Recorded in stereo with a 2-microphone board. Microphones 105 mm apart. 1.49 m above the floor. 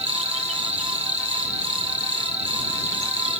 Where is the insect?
75° right (ahead or behind).